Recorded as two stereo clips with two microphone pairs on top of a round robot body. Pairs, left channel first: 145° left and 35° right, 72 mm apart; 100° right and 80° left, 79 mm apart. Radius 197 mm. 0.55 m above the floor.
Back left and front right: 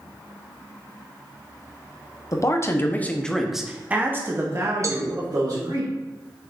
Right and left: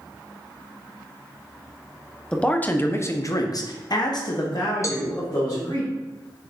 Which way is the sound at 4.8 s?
60° right.